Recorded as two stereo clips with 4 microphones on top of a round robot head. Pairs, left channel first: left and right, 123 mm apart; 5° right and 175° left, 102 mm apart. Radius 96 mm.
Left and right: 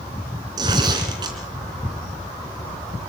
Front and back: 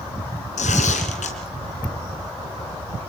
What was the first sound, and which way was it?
Tearing paper, 25° right.